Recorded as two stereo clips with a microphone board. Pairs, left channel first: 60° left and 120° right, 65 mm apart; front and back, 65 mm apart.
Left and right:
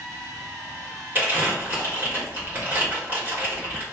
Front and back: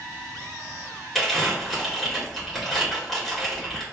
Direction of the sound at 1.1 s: 85° right.